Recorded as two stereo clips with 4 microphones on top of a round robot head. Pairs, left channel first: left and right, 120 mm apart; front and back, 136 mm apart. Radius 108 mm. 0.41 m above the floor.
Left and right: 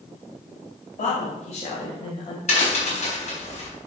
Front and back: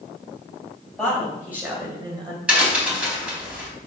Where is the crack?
100° left, 4 m.